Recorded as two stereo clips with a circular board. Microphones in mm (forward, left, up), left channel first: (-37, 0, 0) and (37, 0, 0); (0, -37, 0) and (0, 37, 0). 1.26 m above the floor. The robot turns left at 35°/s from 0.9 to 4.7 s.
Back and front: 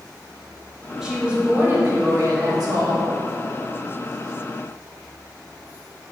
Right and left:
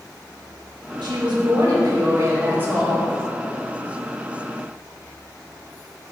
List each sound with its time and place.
1.0 s a woman speaking: 85° left, 1.9 m; by 3.1 s 10° left, 1.9 m